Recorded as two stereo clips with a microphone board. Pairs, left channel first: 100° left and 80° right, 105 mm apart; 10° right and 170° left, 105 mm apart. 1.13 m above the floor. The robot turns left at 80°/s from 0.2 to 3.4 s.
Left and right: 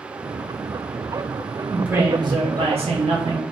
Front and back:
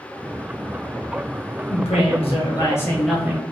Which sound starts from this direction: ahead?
A woman speaking, at 1.7 s.